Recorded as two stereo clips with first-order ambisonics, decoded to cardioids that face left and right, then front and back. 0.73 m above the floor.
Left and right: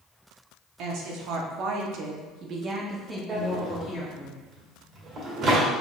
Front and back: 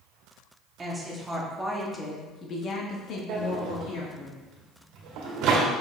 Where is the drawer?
150° right, 1.7 m.